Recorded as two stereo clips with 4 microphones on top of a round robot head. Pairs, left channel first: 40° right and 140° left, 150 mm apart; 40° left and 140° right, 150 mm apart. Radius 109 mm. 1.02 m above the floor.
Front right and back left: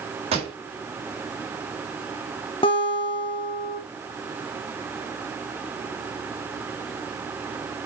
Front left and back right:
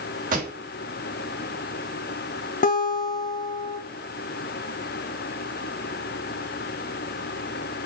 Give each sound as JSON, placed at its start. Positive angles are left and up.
{"t": 0.3, "sound": "a pop", "azimuth_deg": -170, "distance_m": 3.5}
{"t": 2.6, "sound": "a guitar", "azimuth_deg": 15, "distance_m": 1.7}